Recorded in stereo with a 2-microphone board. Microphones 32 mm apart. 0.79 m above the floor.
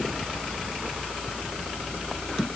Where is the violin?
No violin in this recording.